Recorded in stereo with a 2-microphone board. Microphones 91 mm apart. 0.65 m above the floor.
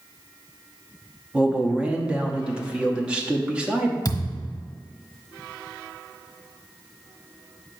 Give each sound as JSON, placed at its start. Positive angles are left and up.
{"t": 1.3, "sound": "a man speaking", "side_deg": -10, "distance_m": 0.8}
{"t": 4.0, "sound": "a thud", "side_deg": 45, "distance_m": 1.2}